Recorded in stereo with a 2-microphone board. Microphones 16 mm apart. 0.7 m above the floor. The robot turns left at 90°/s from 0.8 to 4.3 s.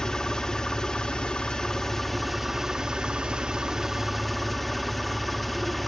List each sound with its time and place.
0.0 s an engine running: 135° left, 1.5 m; by 5.9 s straight behind, 1.5 m